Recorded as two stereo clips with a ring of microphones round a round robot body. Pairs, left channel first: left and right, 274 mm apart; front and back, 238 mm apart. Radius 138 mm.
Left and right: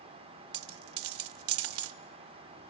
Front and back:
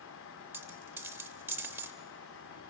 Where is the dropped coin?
100° right, 0.6 m.